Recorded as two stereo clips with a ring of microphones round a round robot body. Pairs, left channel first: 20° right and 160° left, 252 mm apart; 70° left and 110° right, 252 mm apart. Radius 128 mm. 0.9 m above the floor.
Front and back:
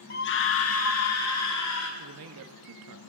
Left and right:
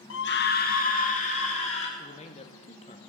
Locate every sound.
0.1 s a scream: 30° left, 0.8 m; by 1.9 s straight ahead, 3 m
2.0 s a man speaking: 130° left, 1.2 m